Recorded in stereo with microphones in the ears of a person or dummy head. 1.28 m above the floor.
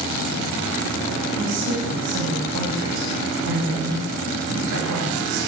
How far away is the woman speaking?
About 7.5 m.